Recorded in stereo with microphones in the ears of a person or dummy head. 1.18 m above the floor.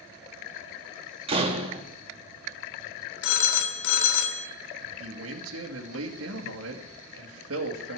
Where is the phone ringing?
75° left (ahead or behind), 1.4 m.